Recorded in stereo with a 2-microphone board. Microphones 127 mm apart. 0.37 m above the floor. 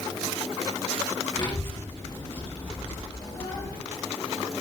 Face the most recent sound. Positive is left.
turn(degrees=45)  # may be behind; listen again after turning